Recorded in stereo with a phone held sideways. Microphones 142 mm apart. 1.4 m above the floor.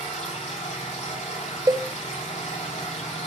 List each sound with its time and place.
0.0 s a machine running: 60° left (ahead or behind), 3 m
1.7 s a cowbell: 25° right (ahead or behind), 0.8 m